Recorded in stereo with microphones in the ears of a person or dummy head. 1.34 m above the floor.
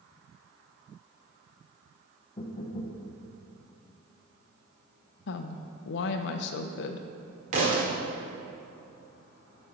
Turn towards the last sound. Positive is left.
turn(degrees=-35)  # may be behind; listen again after turning